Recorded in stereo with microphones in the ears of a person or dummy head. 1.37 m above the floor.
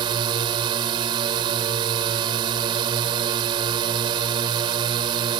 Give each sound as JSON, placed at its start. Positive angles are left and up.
{"t": 0.0, "sound": "a drone", "side_deg": -25}